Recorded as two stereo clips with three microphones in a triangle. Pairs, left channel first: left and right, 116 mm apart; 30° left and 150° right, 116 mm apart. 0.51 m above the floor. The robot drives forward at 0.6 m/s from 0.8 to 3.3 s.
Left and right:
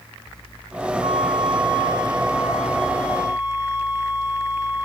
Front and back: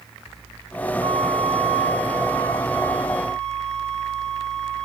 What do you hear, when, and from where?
1.0 s a flute: 115° right, 1.0 m; by 4.8 s 155° right, 2 m